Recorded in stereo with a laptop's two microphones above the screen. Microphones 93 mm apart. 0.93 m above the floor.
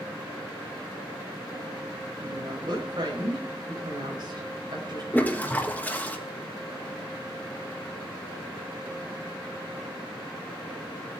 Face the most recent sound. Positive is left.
turn(degrees=20)  # may be behind; listen again after turning